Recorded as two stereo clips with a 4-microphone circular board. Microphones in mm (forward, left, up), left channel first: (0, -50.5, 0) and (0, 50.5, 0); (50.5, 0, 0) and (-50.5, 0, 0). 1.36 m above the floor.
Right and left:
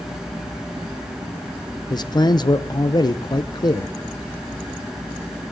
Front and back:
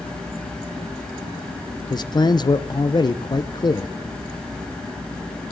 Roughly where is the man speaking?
Ahead right.